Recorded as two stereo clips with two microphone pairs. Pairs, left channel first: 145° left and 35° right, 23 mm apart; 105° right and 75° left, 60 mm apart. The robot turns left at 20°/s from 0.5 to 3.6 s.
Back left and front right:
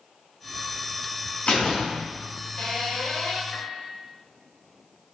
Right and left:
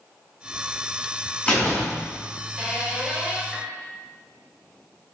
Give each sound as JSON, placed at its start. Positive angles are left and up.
{"t": 1.5, "sound": "a door slam", "azimuth_deg": -170, "distance_m": 4.0}
{"t": 3.5, "sound": "a piano", "azimuth_deg": 170, "distance_m": 1.8}